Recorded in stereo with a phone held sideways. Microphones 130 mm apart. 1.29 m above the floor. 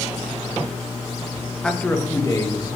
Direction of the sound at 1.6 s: 5° left (ahead or behind).